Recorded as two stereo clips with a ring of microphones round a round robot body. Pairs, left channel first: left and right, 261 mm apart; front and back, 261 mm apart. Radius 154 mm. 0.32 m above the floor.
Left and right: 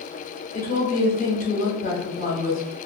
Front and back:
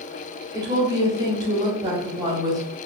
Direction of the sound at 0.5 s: 115° left.